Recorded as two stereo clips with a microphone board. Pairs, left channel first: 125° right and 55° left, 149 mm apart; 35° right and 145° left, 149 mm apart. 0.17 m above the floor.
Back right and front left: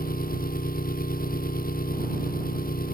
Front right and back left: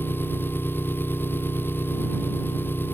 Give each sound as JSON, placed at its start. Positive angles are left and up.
{"t": 0.0, "sound": "an engine running", "azimuth_deg": -110}